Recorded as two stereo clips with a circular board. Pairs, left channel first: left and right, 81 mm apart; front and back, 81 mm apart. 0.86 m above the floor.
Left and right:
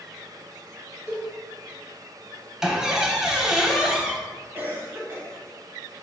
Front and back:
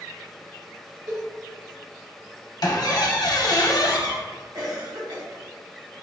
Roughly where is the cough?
Behind right.